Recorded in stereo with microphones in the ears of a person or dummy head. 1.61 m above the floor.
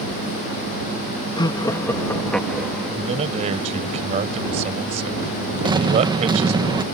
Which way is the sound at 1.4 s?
25° left (ahead or behind).